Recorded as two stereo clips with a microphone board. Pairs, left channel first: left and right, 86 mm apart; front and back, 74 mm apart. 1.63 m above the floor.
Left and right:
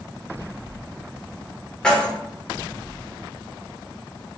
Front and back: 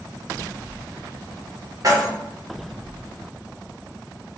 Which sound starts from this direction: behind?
Keys jangling, at 1.8 s.